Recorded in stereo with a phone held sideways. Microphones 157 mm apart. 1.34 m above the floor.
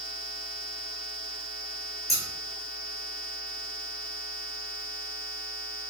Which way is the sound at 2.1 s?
20° right (ahead or behind).